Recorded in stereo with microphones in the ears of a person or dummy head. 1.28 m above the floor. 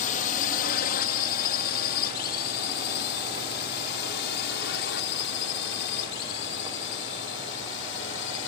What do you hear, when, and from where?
0.0 s a drone: 45° left (ahead or behind); by 8.5 s 75° left (ahead or behind)